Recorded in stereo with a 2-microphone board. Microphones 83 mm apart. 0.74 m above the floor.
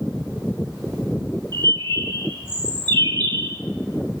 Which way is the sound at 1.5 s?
65° right (ahead or behind).